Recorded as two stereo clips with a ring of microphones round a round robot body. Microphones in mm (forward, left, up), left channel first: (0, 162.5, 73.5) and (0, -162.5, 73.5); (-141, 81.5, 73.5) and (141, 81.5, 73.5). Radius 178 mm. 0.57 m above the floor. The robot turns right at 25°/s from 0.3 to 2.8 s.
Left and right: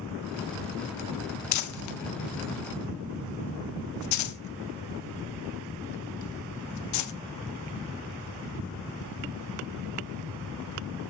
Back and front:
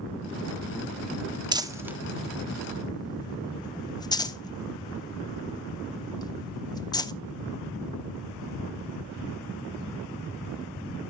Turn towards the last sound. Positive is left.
turn(degrees=105)